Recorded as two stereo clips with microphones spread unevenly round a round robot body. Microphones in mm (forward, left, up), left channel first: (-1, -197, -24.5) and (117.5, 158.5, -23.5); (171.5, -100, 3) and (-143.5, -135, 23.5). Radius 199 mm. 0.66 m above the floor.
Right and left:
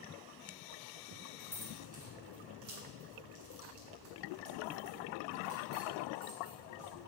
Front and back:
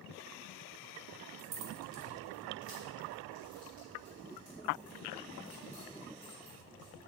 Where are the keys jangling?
160° left, 1.3 m; by 7.0 s 100° left, 4.5 m.